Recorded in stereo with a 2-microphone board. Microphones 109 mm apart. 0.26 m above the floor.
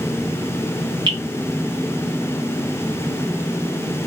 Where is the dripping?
50° right (ahead or behind), 1.2 m.